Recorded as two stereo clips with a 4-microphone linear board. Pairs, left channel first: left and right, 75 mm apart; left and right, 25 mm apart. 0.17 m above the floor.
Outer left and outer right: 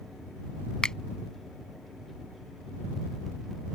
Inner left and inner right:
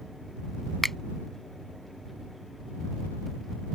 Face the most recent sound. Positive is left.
turn(degrees=10)  # may be behind; listen again after turning